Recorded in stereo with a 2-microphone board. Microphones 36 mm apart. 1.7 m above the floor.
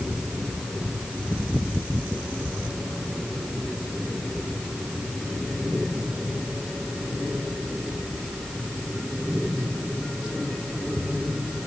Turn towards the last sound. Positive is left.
No sound to turn to.